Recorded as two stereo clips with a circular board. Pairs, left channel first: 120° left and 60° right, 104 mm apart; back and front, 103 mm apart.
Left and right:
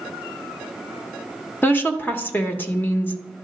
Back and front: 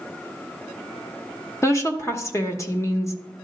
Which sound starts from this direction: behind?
A woman speaking, at 1.6 s.